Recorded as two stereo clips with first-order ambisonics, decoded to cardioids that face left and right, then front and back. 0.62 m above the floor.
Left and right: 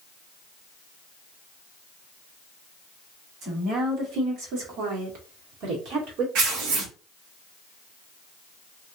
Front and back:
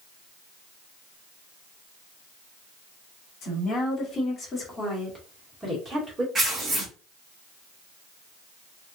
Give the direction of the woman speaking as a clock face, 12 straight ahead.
1 o'clock.